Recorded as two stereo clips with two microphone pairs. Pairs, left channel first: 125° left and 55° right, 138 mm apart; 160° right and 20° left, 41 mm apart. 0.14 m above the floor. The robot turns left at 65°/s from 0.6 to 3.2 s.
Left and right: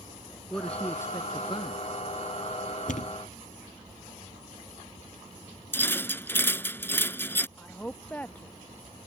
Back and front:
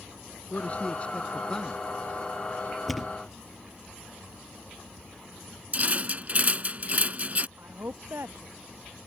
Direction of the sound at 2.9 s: 110° left.